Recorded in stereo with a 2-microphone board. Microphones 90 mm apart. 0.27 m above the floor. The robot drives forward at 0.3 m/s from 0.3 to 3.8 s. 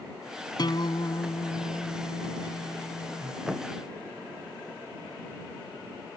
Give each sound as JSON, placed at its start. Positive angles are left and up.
{"t": 0.6, "sound": "a guitar", "side_deg": 55}
{"t": 3.5, "sound": "a thud", "side_deg": -5}